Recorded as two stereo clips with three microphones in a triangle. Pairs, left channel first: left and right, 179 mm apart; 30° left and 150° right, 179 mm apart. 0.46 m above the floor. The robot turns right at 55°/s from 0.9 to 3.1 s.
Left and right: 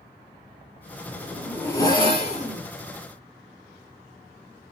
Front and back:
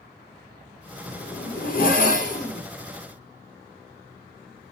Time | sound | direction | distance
1.1 | a zipper | 15° right | 1.2 m